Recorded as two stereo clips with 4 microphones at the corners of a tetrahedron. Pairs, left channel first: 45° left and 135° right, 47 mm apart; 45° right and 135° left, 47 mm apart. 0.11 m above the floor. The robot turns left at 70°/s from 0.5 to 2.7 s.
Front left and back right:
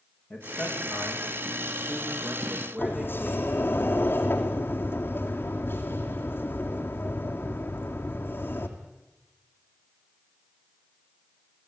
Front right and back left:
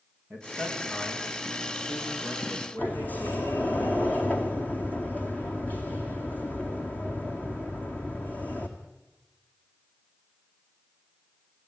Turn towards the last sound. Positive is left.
turn(degrees=5)